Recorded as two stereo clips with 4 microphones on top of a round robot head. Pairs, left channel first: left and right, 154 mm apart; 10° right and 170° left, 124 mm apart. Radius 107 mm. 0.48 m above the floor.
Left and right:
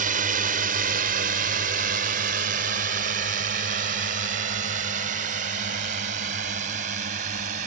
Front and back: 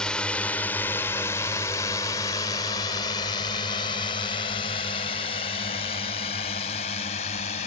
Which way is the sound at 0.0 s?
95° right.